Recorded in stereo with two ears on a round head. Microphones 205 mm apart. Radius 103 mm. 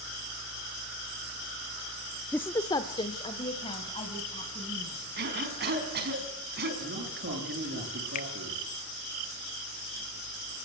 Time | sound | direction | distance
2.3 | a woman speaking | 5° left (ahead or behind) | 0.6 m
5.2 | a cough | 45° right (ahead or behind) | 5.5 m
6.8 | a man speaking | 50° right (ahead or behind) | 9.5 m
8.2 | a finger snap | 35° left (ahead or behind) | 1.2 m